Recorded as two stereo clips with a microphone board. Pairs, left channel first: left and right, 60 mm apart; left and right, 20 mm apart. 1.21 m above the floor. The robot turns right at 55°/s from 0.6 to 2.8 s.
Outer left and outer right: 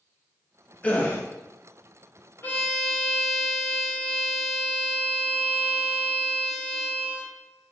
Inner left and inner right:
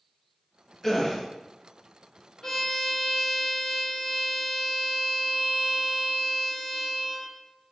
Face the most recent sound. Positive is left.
turn(degrees=15)  # may be behind; listen again after turning